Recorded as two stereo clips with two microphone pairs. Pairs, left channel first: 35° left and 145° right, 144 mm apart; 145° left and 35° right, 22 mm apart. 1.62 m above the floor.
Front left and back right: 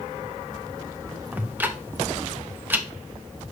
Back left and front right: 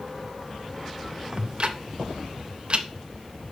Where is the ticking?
70° right, 0.8 m.